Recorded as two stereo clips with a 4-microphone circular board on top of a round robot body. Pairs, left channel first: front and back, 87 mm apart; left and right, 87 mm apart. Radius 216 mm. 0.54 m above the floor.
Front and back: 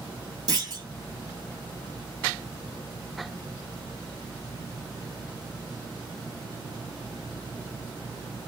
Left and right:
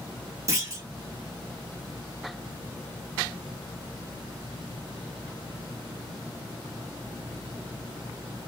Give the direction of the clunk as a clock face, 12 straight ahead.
5 o'clock.